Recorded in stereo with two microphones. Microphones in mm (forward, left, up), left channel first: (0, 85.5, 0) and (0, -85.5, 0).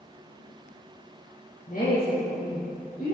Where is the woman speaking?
50° left (ahead or behind), 3.5 m; by 3.1 s 45° left (ahead or behind), 4 m.